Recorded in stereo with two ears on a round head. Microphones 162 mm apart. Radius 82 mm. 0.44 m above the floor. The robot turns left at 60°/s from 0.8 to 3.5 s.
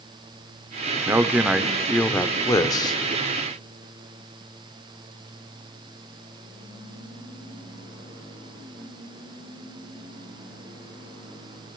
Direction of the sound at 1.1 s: 15° right (ahead or behind).